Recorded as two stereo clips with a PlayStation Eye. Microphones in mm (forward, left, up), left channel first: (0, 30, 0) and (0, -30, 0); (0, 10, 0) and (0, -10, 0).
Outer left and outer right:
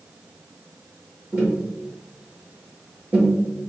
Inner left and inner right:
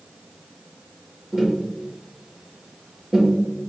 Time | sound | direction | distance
1.3 | tapping | 25° right (ahead or behind) | 1.9 m